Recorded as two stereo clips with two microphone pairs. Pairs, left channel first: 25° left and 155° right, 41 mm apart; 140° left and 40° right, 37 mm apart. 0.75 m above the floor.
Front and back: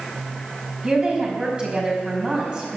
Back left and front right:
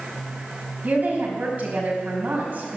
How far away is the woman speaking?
About 5 m.